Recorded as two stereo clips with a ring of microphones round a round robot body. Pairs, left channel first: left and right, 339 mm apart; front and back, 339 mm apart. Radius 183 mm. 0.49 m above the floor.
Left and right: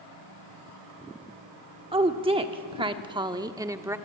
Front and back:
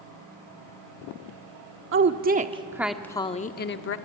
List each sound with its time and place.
1.9 s a woman speaking: 155° right, 1.0 m; by 4.0 s 10° right, 1.0 m